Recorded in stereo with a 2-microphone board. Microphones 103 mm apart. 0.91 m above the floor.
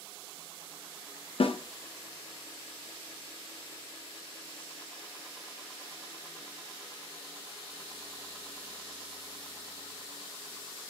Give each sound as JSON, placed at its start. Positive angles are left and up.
{"t": 1.4, "sound": "a snare drum", "side_deg": 65, "distance_m": 0.6}